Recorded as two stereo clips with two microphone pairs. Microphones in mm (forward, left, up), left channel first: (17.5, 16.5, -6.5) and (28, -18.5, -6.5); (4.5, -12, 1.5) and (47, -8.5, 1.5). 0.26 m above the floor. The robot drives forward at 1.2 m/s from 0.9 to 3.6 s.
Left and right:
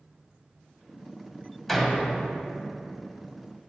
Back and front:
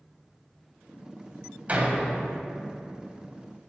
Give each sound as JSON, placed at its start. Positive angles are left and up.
{"t": 1.7, "sound": "a door slam", "azimuth_deg": 25, "distance_m": 0.9}